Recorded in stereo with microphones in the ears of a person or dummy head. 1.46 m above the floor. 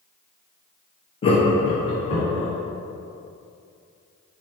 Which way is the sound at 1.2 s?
25° left (ahead or behind).